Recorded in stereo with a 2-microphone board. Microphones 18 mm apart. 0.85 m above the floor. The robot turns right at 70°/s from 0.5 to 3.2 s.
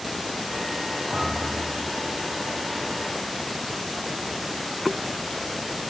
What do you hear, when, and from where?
1.1 s a thud: 70° right, 8 m; by 1.7 s 25° right, 8 m